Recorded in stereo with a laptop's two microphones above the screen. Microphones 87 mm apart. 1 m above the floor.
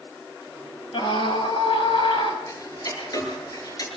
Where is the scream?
65° left (ahead or behind), 6 m.